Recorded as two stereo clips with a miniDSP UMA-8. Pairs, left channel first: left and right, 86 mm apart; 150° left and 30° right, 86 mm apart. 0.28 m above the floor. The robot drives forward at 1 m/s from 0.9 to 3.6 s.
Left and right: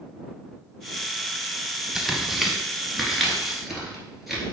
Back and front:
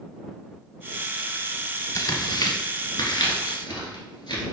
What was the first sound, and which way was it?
Tearing paper, 175° right.